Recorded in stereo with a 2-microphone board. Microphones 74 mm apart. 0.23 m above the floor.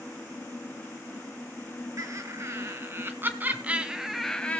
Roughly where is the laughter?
Right.